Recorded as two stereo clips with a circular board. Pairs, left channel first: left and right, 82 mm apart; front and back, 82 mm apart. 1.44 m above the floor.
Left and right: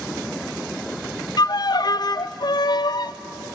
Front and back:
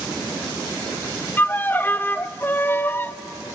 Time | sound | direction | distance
1.4 | a violin | 65° left | 0.5 m